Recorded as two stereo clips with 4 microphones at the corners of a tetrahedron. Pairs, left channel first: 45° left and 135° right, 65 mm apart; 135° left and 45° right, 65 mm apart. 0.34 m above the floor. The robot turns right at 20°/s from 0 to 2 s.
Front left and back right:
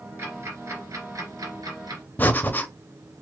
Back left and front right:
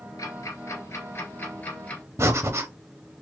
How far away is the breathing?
About 0.6 m.